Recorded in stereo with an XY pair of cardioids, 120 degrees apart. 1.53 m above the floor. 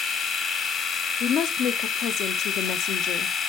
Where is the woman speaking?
65° left, 0.6 m.